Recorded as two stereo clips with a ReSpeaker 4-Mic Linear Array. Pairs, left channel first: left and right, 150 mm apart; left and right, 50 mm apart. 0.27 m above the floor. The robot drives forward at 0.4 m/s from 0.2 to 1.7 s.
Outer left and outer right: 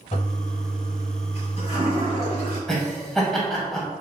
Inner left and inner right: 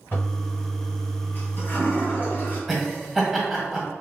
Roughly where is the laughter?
Centre.